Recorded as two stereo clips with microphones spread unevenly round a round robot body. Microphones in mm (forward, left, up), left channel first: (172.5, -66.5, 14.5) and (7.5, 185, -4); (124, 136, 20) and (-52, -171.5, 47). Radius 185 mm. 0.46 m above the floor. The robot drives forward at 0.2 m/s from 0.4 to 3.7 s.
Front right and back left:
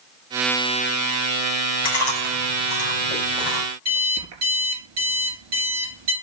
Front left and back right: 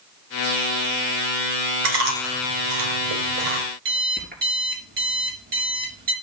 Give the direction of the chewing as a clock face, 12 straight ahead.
5 o'clock.